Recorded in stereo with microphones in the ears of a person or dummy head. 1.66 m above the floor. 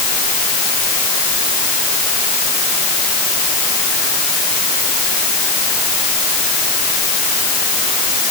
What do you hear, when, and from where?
Only background noise.